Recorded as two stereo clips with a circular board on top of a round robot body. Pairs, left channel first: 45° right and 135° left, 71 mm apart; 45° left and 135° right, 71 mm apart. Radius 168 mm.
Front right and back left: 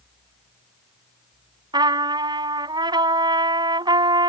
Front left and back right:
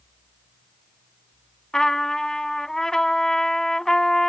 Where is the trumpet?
130° left.